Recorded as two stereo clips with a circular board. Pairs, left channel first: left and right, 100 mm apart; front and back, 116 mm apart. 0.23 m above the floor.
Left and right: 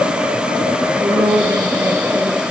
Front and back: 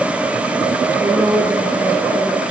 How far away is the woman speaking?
About 3 m.